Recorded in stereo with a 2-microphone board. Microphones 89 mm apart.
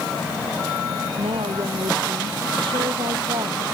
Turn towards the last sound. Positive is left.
turn(degrees=-70)  # may be behind; listen again after turning